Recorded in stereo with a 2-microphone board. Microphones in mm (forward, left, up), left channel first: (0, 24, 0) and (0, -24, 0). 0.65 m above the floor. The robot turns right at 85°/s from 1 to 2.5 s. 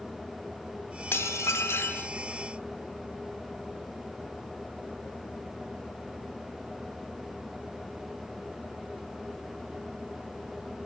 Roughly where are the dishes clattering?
Ahead left.